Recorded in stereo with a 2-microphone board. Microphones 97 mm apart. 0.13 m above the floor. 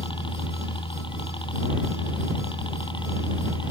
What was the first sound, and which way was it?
A helicopter, 60° left (ahead or behind).